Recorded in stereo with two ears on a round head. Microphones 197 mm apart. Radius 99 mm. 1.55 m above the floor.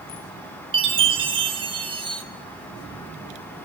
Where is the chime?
25° right (ahead or behind), 3 m.